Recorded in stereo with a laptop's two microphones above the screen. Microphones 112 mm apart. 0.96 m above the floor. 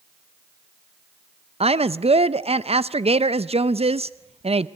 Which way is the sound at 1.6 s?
70° right (ahead or behind).